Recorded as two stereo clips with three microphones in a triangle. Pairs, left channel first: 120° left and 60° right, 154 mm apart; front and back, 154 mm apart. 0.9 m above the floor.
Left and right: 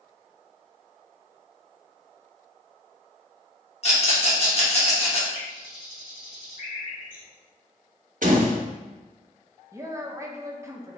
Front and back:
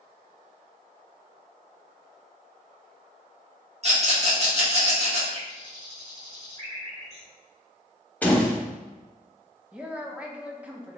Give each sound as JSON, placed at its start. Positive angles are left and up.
{"t": 3.8, "sound": "a rattle", "azimuth_deg": 150, "distance_m": 1.2}
{"t": 5.3, "sound": "a bird", "azimuth_deg": 140, "distance_m": 1.9}
{"t": 8.2, "sound": "a door slam", "azimuth_deg": -80, "distance_m": 0.8}
{"t": 9.7, "sound": "a woman speaking", "azimuth_deg": -110, "distance_m": 0.5}